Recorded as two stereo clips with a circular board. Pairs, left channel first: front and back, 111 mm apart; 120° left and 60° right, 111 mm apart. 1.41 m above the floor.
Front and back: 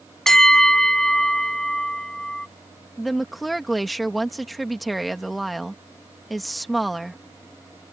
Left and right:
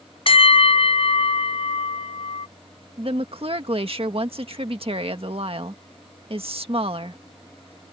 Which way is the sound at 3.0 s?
90° right.